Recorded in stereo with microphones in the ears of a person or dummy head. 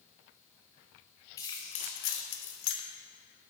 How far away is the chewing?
No chewing in this recording.